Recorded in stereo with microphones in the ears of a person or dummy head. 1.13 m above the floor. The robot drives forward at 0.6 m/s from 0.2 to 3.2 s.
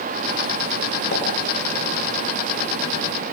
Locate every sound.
1.1 s a pop: 65° left (ahead or behind), 6 m